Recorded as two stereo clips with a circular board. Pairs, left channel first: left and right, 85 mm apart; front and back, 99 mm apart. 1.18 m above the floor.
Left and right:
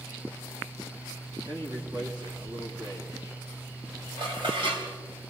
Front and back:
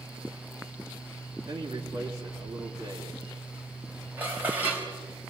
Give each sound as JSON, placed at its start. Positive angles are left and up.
{"t": 1.5, "sound": "a man speaking", "azimuth_deg": -130, "distance_m": 3.0}
{"t": 4.2, "sound": "dishes clattering", "azimuth_deg": -110, "distance_m": 4.0}